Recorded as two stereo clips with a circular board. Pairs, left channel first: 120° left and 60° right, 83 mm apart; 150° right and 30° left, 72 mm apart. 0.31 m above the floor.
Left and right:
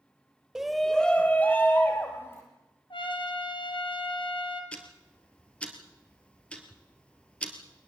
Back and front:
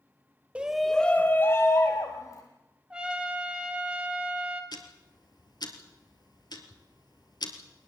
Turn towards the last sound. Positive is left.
turn(degrees=-165)